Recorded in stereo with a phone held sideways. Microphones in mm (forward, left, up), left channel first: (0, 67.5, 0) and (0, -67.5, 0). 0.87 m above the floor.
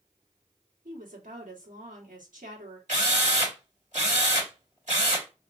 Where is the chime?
No chime in this recording.